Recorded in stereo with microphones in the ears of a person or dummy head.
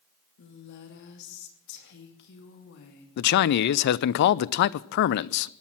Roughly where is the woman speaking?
Left.